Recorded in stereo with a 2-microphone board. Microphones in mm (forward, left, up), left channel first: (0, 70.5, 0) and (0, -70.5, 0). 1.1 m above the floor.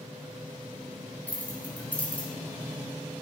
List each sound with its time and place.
1.3 s keys jangling: 10° left (ahead or behind), 1.7 m